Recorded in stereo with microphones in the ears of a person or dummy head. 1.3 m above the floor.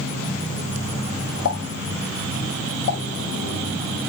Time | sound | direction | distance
1.4 | a pop | 65° left (ahead or behind) | 0.7 m